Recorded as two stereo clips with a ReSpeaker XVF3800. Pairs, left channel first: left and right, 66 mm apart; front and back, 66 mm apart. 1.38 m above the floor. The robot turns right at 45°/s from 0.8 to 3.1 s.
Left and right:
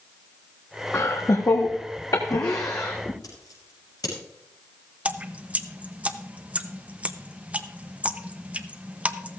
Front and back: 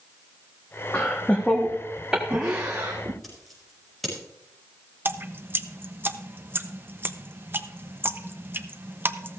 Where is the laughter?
45° left, 1.2 m; by 3.1 s 145° left, 1.2 m.